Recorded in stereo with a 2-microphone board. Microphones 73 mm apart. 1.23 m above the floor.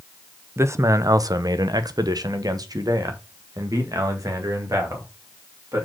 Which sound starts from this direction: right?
A man speaking, at 0.6 s.